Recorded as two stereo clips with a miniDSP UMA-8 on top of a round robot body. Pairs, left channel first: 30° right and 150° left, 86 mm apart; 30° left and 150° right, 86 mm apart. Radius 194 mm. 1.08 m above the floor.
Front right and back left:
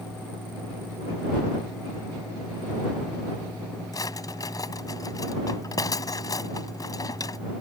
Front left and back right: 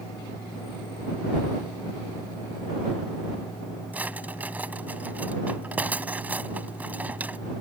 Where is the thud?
70° right.